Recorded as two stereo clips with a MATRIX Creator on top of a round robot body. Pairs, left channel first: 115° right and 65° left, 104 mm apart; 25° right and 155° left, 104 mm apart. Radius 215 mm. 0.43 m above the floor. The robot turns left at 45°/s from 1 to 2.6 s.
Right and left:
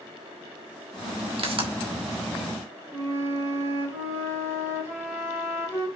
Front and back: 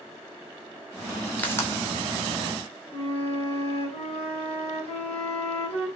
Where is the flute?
5° left, 4 m.